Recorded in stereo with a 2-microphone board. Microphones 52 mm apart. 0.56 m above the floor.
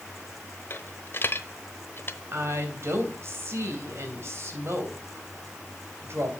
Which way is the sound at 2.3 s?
55° right (ahead or behind).